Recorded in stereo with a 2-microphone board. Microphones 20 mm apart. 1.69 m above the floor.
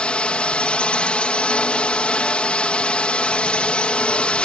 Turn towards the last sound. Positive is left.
turn(degrees=60)  # may be behind; listen again after turning